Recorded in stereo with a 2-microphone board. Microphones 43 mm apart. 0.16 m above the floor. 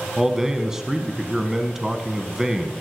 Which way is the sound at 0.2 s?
10° right (ahead or behind).